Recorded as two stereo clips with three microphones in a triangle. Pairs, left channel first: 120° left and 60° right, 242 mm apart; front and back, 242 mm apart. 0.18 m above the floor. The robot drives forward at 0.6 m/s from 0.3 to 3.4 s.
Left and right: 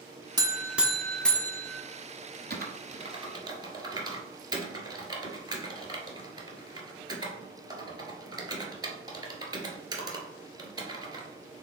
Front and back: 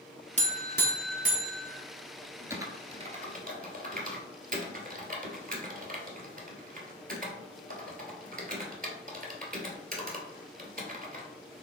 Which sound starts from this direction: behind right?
A buzzer, at 0.4 s.